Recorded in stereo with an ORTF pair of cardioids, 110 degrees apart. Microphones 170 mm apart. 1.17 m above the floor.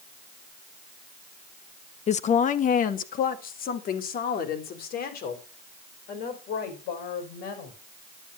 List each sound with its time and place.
2.1 s a woman speaking: 40° left, 0.8 m; by 7.8 s 65° left, 5.5 m